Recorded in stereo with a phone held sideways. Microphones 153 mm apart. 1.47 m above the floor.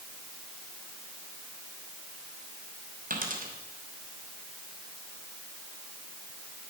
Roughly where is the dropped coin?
Right.